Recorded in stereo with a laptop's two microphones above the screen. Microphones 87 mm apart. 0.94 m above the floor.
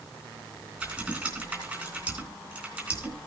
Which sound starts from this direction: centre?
Typing on a keyboard, at 0.8 s.